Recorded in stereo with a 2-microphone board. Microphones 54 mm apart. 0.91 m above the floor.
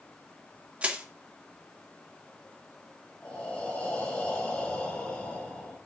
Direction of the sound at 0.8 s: 20° right (ahead or behind).